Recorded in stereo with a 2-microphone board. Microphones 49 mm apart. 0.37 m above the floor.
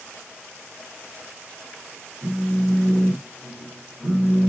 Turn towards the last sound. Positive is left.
turn(degrees=-10)  # may be behind; listen again after turning